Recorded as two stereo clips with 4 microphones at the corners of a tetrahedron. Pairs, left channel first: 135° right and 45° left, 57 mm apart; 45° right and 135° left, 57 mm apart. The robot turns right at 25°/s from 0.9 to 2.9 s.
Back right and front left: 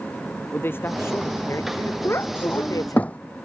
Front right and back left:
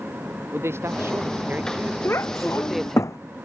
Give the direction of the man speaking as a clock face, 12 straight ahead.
6 o'clock.